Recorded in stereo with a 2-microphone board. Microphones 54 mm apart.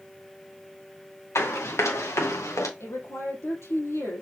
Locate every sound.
1.4 s running footsteps: 60° left (ahead or behind), 4 m; by 2.7 s 75° left (ahead or behind), 3 m
2.8 s a woman speaking: 65° left (ahead or behind), 4 m